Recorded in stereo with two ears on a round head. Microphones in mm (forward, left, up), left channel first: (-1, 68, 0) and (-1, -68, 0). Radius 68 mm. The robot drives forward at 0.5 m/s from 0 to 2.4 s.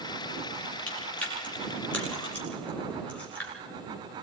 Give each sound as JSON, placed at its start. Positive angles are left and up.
{"t": 0.9, "sound": "chewing", "side_deg": 10, "distance_m": 7.0}